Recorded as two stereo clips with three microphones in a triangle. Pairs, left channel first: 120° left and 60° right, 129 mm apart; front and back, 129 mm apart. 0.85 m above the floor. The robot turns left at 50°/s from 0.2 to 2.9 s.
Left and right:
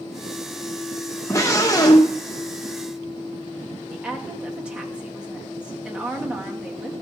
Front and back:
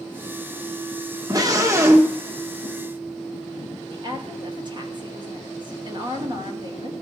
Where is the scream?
165° left, 1.0 m; by 2.2 s 120° left, 1.0 m.